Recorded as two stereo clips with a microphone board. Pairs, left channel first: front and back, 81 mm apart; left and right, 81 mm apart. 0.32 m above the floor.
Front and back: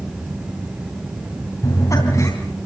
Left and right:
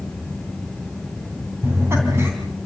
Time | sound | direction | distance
1.6 | laughter | 40° right | 3 m